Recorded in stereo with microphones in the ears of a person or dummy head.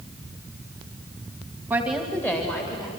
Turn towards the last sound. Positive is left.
turn(degrees=20)  # may be behind; listen again after turning